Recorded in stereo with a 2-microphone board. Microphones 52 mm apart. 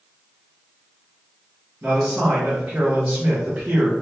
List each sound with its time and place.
1.8 s a man speaking: 30° right (ahead or behind), 0.9 m